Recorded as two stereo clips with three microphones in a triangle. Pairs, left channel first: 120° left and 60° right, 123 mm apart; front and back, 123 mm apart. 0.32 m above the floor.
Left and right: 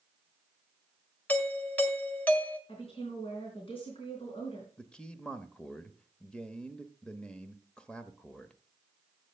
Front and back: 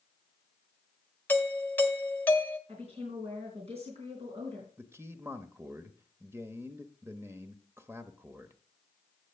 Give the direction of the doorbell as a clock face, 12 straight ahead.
10 o'clock.